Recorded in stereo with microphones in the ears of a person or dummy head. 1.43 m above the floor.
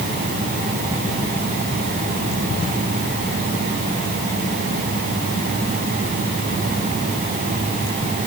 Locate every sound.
Only background noise.